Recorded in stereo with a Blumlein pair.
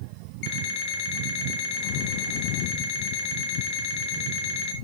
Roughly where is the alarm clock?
Ahead left.